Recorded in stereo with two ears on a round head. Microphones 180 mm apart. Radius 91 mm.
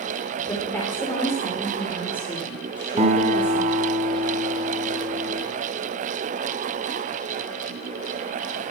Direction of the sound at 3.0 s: 35° right (ahead or behind).